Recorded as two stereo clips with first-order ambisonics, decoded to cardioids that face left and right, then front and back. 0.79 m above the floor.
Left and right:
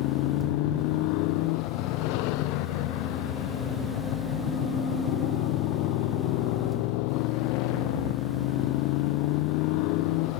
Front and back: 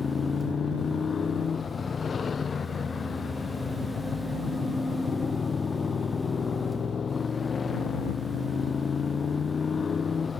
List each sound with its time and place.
0.0 s a motorcycle: 75° left